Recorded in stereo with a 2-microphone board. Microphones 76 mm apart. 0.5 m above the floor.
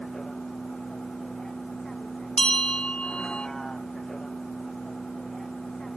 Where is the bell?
15° left (ahead or behind).